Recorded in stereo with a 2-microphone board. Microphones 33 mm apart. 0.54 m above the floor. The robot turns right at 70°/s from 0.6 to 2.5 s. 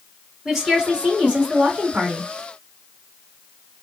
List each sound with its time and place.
0.5 s a woman speaking: 170° right, 2 m; by 2.3 s 50° right, 2 m